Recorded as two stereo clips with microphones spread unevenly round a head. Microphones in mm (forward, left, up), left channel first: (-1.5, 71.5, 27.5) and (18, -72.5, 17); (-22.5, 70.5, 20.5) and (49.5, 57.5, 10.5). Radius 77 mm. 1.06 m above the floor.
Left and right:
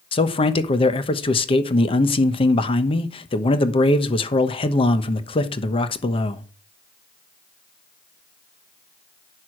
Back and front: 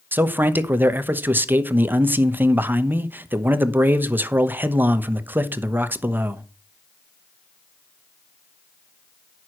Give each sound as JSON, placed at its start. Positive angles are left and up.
{"t": 0.1, "sound": "a man speaking", "azimuth_deg": 45, "distance_m": 1.0}